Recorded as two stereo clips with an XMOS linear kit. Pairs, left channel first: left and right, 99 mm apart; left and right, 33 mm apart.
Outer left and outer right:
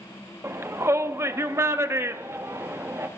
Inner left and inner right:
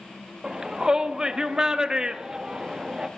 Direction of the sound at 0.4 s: 25° right (ahead or behind).